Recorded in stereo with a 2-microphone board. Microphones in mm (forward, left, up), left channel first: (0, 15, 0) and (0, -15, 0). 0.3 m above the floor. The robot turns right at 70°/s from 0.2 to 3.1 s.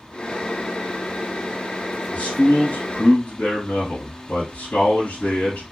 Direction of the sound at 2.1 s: 55° left.